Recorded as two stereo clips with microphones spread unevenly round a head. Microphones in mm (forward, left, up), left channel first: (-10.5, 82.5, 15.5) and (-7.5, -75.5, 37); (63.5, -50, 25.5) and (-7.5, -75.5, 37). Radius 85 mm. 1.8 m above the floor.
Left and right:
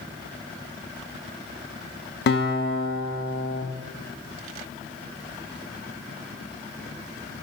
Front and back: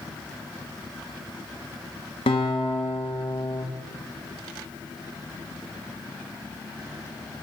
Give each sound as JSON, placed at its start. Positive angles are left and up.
{"t": 2.3, "sound": "a guitar", "azimuth_deg": 60, "distance_m": 1.9}